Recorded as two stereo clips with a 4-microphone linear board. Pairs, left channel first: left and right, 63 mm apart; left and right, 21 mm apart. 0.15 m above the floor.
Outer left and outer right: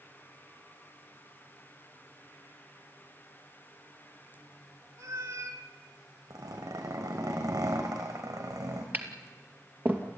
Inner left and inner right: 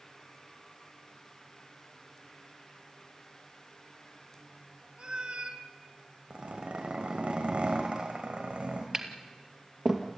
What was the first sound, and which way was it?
A cat meowing, 65° right (ahead or behind).